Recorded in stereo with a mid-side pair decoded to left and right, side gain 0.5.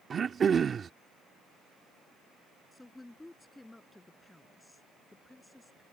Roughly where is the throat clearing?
Ahead right.